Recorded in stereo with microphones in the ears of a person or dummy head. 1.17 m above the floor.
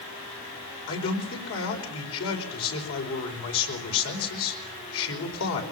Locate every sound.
0.9 s a man speaking: 75° left (ahead or behind), 5.5 m